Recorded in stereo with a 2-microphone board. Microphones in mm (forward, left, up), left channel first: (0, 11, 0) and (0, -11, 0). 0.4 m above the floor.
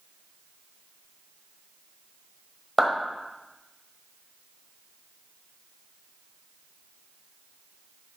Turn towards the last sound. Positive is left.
turn(degrees=-10)  # may be behind; listen again after turning